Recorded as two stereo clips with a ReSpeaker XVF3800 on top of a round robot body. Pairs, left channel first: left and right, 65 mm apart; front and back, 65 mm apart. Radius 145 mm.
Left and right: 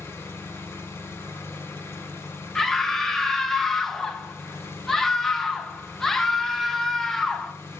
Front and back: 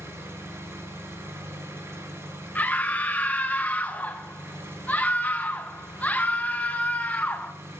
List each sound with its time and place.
0.0 s an engine running: 140° left, 1.5 m
2.5 s a scream: 10° left, 1.0 m